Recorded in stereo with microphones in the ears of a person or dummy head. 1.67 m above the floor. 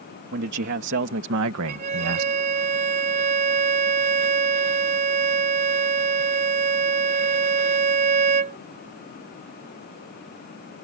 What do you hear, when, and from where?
0.3 s a man speaking: 60° right (ahead or behind); by 2.3 s 85° right
1.7 s a violin: 35° right (ahead or behind)